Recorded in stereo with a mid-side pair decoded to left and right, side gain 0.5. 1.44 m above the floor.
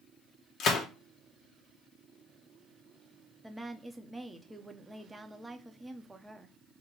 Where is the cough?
No cough in this recording.